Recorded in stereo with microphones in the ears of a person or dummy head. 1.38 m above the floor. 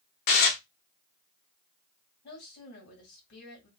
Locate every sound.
0.3 s dishes clattering: 45° left (ahead or behind), 0.8 m
2.2 s a woman speaking: 60° left (ahead or behind), 2 m